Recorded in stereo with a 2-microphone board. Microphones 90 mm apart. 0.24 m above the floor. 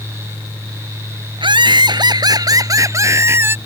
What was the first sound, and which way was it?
Laughter, 65° right (ahead or behind).